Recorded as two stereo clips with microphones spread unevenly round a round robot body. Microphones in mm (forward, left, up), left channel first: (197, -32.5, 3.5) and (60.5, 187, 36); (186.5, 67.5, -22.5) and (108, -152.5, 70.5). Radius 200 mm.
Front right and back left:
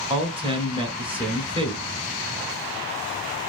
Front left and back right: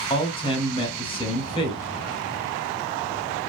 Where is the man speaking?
50° left, 1.1 m.